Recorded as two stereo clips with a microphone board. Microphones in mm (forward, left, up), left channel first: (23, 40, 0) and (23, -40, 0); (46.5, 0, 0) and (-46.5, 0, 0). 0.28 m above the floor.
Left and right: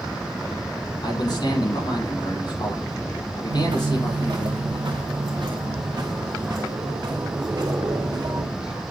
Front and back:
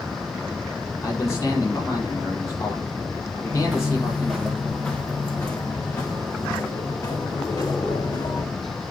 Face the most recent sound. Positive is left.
turn(degrees=-50)